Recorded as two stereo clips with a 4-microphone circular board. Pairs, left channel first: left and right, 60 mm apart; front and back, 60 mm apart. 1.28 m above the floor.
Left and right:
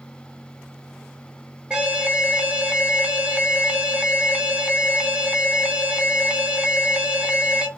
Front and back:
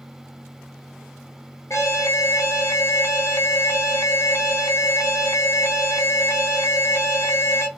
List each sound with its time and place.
1.7 s an alarm: 20° right, 0.5 m